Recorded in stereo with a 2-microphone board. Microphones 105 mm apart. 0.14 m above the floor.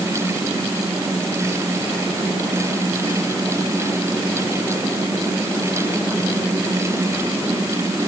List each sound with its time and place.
Only background noise.